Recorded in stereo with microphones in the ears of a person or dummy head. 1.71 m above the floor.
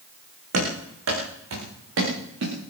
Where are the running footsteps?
80° right, 9.5 m; by 2.5 s 75° right (ahead or behind), 11 m.